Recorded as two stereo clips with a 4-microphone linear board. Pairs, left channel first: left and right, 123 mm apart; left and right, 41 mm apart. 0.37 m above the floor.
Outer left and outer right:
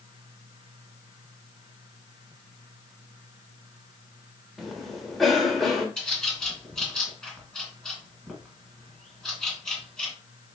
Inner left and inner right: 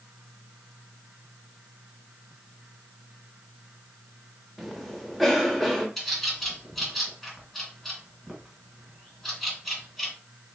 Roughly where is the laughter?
No laughter in this recording.